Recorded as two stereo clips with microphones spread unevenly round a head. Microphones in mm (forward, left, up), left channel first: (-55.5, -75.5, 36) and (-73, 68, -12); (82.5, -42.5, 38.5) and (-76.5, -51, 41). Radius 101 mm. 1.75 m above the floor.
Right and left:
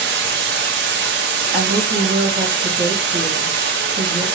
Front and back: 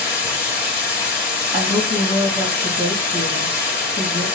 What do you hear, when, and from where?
0.0 s running water: 80° left, 0.8 m
1.5 s a woman speaking: 100° left, 1.7 m